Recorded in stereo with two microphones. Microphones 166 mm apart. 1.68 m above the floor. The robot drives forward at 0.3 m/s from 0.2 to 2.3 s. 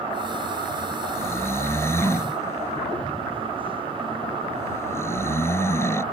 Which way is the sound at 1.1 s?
15° left (ahead or behind).